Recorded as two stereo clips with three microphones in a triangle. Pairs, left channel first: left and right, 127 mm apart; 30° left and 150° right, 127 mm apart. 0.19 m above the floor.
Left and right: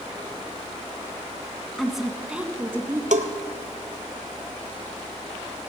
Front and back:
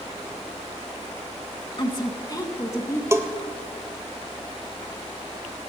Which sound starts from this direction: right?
A bell, at 3.1 s.